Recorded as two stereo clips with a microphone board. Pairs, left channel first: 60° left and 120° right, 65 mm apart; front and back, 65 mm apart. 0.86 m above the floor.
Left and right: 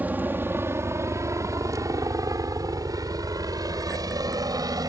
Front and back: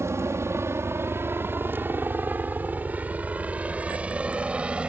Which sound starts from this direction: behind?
A helicopter, at 0.0 s.